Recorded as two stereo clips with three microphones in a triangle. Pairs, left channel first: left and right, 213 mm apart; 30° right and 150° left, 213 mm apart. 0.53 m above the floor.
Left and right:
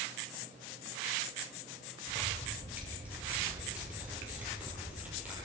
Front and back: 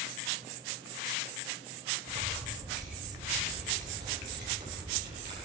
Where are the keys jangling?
175° right, 7.5 m.